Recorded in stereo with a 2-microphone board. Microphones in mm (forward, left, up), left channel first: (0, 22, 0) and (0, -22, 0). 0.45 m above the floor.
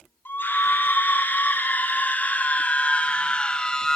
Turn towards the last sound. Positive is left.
turn(degrees=15)  # may be behind; listen again after turning